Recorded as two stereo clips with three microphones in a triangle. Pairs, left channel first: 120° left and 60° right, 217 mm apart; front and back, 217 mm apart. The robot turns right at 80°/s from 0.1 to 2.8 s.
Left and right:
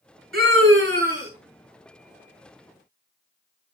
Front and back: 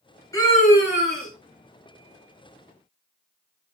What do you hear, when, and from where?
0.3 s a scream: 75° right, 4.5 m; by 1.3 s straight ahead, 4.5 m